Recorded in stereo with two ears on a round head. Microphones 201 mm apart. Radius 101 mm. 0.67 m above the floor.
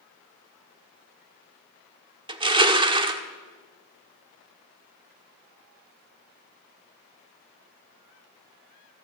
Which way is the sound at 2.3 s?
20° right (ahead or behind).